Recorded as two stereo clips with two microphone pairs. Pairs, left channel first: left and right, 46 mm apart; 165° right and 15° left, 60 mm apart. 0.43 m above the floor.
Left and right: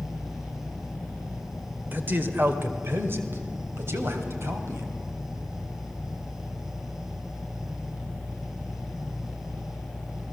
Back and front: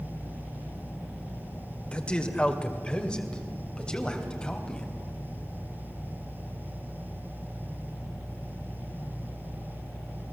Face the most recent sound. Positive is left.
turn(degrees=-90)